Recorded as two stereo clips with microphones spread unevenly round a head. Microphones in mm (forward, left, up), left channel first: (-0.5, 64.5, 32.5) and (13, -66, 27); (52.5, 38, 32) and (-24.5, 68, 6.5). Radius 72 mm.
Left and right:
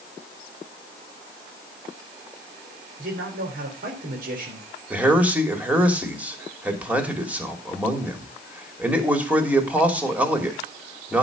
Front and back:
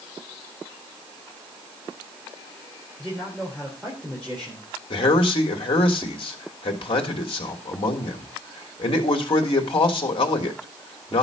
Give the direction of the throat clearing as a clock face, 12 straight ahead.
No throat clearing in this recording.